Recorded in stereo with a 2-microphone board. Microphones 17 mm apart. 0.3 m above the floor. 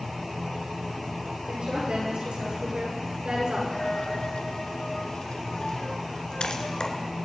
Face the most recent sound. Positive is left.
turn(degrees=65)  # may be behind; listen again after turning